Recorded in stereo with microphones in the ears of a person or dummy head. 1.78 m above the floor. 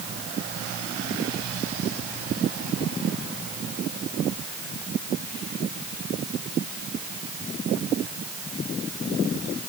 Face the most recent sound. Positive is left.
No sound to turn to.